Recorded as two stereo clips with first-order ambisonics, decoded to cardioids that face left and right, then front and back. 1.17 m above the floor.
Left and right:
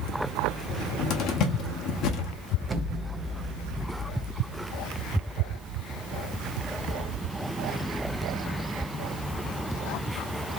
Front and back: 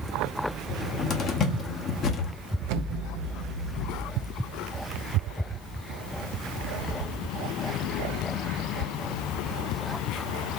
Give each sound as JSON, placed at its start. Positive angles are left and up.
{"t": 0.7, "sound": "a cupboard door", "azimuth_deg": 55, "distance_m": 0.9}
{"t": 2.7, "sound": "an explosion", "azimuth_deg": -165, "distance_m": 0.5}